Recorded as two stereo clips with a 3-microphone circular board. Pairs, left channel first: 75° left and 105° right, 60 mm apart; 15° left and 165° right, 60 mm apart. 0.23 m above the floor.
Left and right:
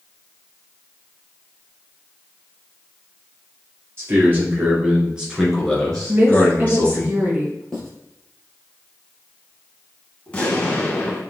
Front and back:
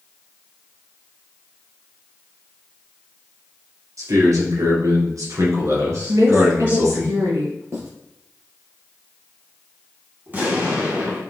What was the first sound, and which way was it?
A man speaking, 155° right.